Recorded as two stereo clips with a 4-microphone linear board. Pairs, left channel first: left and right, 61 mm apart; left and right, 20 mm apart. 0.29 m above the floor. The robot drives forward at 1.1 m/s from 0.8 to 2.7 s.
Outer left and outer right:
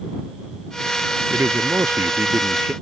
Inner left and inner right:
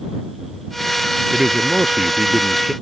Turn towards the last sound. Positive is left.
turn(degrees=-35)  # may be behind; listen again after turning